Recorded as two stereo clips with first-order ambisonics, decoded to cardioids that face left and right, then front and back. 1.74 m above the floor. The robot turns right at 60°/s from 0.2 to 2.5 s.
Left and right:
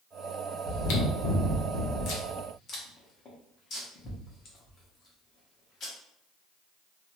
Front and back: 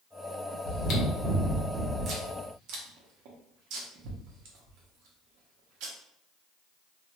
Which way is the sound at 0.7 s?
40° left.